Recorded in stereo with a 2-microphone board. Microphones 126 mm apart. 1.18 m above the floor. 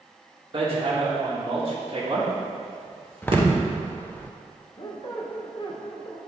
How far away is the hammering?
About 1.7 m.